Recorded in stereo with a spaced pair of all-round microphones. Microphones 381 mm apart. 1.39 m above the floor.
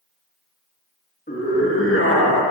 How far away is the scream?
About 2 m.